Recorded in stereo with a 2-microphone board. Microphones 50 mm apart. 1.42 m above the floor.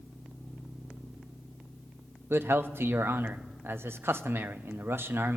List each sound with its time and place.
2.3 s a man speaking: 50° right (ahead or behind), 0.5 m